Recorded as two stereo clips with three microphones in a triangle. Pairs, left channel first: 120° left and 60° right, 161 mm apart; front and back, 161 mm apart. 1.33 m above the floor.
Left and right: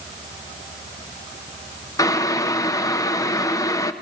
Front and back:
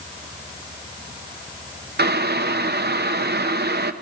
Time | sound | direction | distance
2.0 | boiling | 170° right | 0.8 m